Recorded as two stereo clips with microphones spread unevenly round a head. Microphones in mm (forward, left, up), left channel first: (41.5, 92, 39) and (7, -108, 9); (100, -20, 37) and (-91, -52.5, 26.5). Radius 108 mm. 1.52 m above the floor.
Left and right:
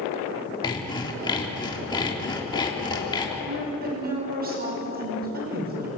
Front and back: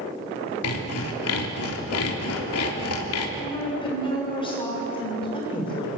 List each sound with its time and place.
0.6 s sawing: 10° left, 3 m
3.4 s a woman speaking: 55° right, 7 m